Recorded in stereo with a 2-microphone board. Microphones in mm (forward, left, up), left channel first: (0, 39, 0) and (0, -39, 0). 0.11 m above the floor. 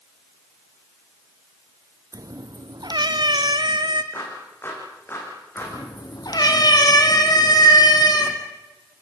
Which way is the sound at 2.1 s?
50° right (ahead or behind).